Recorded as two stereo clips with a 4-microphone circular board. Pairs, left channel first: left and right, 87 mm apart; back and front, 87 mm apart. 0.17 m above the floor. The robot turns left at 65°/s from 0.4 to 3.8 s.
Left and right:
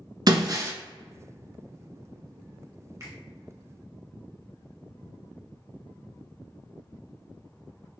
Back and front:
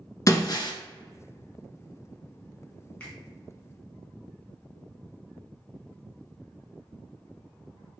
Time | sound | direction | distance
0.3 | breaking glass | 130° right | 0.6 m
3.0 | a finger snap | 110° right | 1.5 m